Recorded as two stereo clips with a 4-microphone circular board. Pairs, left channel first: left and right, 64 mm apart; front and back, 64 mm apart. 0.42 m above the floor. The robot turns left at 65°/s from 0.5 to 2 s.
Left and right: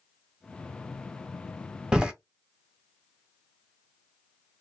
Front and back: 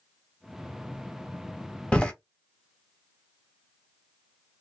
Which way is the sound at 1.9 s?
40° right.